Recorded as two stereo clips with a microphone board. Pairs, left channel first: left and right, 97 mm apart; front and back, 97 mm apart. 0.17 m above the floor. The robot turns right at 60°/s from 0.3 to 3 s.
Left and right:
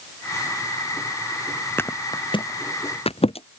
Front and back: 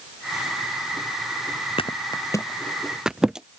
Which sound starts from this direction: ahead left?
A thud, at 1.8 s.